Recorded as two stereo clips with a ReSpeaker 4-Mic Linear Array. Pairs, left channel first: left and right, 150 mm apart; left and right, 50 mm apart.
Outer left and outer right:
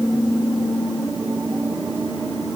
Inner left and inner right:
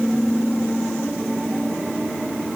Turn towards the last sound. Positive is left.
No sound to turn to.